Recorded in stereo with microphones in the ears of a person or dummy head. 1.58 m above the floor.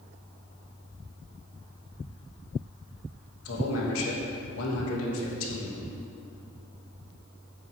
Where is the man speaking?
80° left, 3 m.